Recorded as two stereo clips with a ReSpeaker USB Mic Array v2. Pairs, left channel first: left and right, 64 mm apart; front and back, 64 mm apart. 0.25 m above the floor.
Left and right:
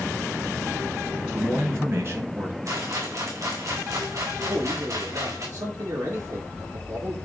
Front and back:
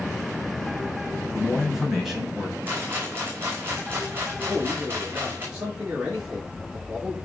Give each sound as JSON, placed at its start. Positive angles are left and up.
{"t": 1.3, "sound": "a man speaking", "azimuth_deg": -100, "distance_m": 2.5}
{"t": 2.6, "sound": "a rattle", "azimuth_deg": -120, "distance_m": 5.0}
{"t": 4.5, "sound": "a man speaking", "azimuth_deg": -110, "distance_m": 4.5}